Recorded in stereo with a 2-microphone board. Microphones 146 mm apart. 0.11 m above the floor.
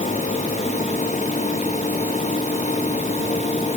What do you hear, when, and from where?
Only background noise.